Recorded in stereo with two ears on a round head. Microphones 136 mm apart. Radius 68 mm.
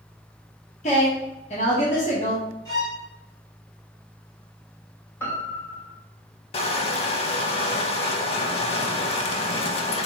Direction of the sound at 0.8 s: 45° left (ahead or behind).